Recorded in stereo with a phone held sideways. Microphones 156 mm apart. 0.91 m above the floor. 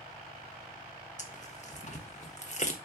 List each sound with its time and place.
1.2 s tearing paper: 50° left (ahead or behind), 1.3 m